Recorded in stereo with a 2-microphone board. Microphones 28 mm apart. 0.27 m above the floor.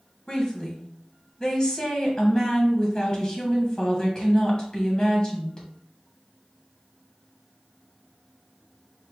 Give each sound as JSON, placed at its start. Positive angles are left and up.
{"t": 0.3, "sound": "a woman speaking", "side_deg": 30, "distance_m": 1.4}